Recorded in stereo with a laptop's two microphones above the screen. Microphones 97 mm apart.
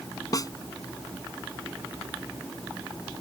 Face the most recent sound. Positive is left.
turn(degrees=40)  # may be behind; listen again after turning